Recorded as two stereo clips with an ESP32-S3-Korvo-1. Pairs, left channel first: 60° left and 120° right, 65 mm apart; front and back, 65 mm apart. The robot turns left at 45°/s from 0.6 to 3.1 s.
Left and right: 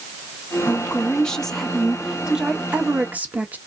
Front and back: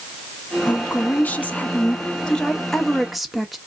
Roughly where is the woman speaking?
Ahead.